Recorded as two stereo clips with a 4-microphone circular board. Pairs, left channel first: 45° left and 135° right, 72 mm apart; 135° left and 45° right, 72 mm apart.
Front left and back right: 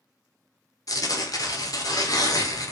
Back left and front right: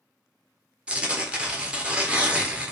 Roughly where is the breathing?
I don't hear breathing.